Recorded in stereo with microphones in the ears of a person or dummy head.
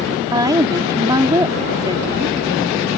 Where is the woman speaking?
20° right (ahead or behind).